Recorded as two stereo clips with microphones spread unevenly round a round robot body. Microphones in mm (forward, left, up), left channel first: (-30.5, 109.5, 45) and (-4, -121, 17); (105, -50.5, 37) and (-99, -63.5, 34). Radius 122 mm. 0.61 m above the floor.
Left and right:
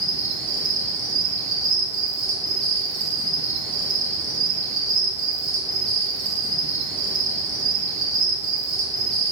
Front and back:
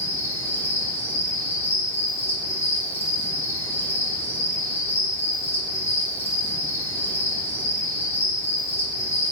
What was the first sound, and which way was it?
An insect, 70° right.